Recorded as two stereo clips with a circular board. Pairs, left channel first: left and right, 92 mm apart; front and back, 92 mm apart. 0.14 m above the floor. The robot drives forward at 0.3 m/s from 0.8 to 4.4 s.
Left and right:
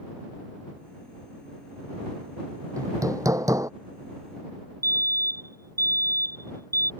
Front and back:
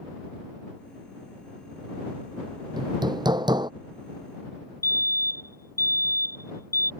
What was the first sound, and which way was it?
Hammering, 140° right.